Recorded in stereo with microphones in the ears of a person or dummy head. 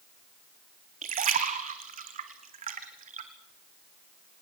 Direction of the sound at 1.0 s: 35° right (ahead or behind).